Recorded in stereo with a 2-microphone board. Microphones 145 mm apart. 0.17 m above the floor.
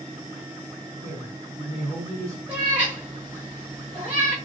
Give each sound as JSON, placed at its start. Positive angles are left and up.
{"t": 1.0, "sound": "a man speaking", "side_deg": -25, "distance_m": 1.2}
{"t": 2.5, "sound": "a cat meowing", "side_deg": -10, "distance_m": 1.5}